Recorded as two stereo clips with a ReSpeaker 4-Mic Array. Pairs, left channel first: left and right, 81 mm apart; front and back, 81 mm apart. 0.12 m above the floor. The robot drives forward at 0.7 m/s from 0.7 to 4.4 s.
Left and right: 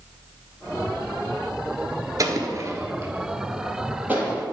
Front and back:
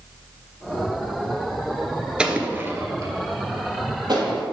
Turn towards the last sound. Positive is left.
turn(degrees=-160)